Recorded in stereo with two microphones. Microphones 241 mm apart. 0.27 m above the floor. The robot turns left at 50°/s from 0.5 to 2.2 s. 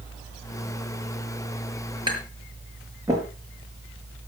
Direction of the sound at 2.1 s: 20° right (ahead or behind).